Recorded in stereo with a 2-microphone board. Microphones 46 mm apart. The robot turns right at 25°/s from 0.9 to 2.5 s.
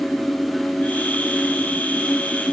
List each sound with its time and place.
Only background noise.